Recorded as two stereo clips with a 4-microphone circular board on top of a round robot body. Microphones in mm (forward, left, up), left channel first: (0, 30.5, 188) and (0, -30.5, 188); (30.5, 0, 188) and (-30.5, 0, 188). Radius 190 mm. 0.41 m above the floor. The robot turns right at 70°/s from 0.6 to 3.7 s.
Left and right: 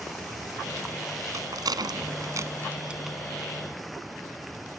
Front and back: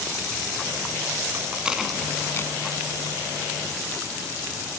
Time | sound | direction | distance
1.3 | a rattle | 125° right | ?